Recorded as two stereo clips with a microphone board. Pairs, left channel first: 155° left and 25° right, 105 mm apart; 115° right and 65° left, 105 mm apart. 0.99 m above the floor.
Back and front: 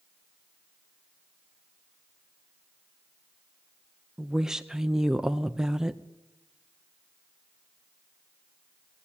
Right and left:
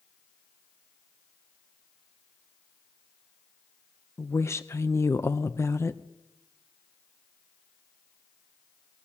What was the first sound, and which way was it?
A woman speaking, 100° right.